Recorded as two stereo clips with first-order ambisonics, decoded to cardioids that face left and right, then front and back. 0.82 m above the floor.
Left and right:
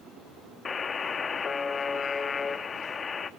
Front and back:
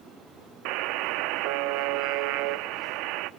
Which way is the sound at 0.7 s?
160° left.